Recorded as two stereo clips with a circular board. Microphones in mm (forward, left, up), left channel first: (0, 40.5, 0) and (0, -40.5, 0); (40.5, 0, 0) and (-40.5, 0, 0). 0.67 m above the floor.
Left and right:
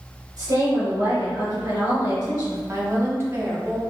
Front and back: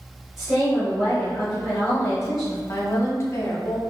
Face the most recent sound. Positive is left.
turn(degrees=-45)